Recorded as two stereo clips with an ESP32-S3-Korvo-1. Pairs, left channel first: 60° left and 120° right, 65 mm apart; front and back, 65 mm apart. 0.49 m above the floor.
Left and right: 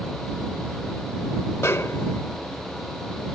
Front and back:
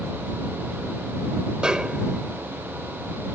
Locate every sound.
1.6 s a snare drum: 105° left